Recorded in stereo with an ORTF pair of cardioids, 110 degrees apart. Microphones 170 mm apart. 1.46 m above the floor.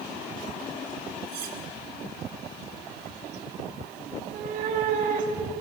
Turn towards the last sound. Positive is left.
turn(degrees=-50)